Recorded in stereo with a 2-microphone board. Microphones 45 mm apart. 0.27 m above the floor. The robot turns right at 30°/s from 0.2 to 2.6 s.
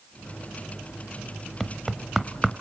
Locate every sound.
1.6 s knocking: centre (ahead or behind), 0.8 m; by 2.5 s 10° right (ahead or behind), 0.8 m